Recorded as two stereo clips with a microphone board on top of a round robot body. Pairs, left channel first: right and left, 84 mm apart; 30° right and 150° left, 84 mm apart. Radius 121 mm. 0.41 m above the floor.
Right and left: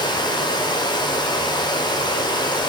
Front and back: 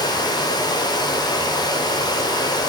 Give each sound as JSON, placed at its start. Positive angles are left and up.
{"t": 0.0, "sound": "running water", "azimuth_deg": -65, "distance_m": 1.3}